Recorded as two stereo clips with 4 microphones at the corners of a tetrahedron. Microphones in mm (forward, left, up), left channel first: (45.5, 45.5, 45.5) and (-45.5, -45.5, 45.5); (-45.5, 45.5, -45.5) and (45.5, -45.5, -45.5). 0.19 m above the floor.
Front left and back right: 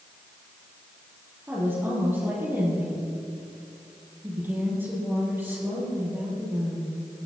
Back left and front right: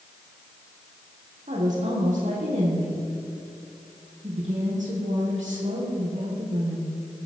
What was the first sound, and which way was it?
A woman speaking, 60° right.